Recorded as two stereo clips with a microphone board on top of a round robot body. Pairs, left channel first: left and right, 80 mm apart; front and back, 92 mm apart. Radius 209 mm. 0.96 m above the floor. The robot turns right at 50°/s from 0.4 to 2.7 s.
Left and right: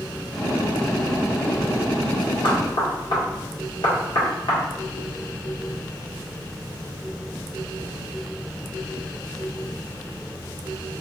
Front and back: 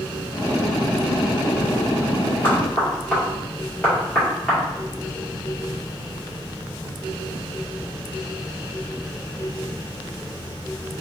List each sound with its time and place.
2.4 s knocking: 65° left, 1.7 m; by 4.6 s 80° left, 1.7 m